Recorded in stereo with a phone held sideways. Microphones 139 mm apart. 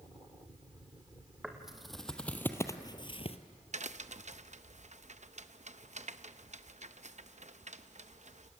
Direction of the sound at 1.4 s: 5° right (ahead or behind).